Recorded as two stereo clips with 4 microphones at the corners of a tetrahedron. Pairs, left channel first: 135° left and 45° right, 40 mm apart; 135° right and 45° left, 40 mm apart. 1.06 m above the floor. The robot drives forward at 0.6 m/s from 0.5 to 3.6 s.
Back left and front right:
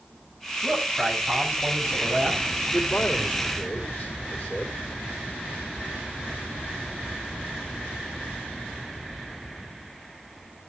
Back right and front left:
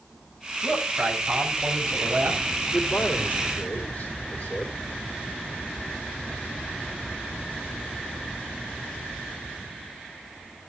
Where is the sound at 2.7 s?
175° left, 2.5 m.